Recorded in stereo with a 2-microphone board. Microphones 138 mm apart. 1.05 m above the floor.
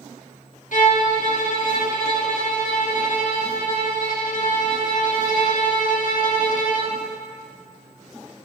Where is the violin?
70° left (ahead or behind), 1.1 m.